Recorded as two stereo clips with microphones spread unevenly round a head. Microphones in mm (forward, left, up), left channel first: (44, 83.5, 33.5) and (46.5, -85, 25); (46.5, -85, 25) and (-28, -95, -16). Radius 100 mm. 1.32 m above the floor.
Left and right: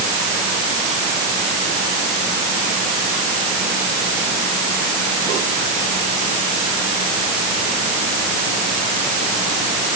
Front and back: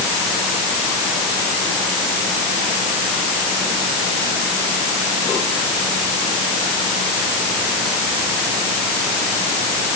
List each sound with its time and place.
Only background noise.